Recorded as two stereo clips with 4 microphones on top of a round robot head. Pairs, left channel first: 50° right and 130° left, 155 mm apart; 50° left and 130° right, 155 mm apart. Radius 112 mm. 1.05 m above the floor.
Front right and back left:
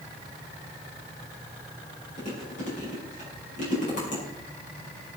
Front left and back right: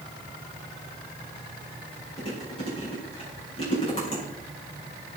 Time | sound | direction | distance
2.2 | chewing | 5° right | 6.5 m